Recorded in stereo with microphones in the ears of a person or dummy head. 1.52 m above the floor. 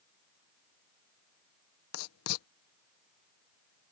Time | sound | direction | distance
1.9 | writing | 75° left (ahead or behind) | ?